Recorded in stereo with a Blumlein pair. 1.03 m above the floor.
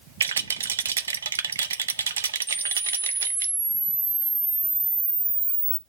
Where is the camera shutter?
10° right, 0.7 m.